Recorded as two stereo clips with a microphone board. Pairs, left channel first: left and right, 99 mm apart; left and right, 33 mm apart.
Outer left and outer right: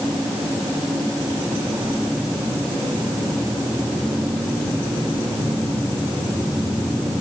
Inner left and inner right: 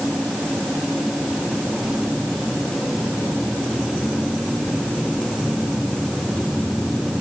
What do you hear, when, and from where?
Only background noise.